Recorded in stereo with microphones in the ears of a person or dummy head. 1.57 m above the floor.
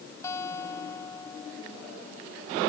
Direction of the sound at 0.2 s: 20° left (ahead or behind).